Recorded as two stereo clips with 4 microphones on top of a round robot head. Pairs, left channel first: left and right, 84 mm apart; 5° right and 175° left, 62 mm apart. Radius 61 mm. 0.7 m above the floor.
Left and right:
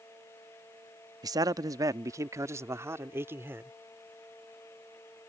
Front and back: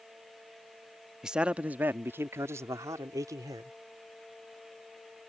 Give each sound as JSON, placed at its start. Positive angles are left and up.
{"t": 1.2, "sound": "a man speaking", "azimuth_deg": -110}